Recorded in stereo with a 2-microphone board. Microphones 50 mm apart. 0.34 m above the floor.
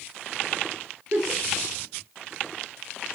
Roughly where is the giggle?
Right.